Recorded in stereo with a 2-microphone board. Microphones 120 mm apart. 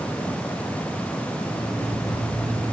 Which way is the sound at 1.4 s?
80° left.